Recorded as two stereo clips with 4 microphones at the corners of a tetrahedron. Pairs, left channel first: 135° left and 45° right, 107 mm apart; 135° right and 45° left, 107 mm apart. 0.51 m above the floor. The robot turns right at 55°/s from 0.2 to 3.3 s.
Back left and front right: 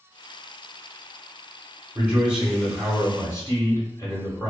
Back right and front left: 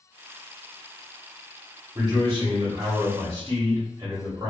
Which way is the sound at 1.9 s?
15° left.